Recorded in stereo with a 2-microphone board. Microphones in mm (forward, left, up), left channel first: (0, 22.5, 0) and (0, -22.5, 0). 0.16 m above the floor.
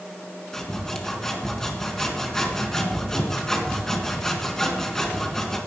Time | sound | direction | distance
0.5 | sawing | 10° left (ahead or behind) | 2 m